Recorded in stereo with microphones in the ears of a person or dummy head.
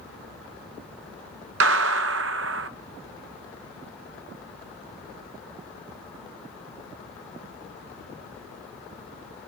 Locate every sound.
1.6 s a gunshot: 60° right (ahead or behind), 0.8 m